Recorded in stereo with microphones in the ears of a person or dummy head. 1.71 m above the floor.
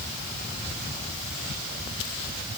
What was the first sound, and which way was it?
Only background noise.